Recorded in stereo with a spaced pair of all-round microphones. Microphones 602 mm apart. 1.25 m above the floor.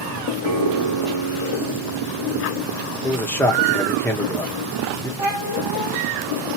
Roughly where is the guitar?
Right.